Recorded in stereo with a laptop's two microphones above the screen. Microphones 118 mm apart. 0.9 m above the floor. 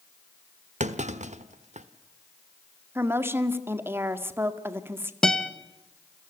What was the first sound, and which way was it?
A clunk, 80° right.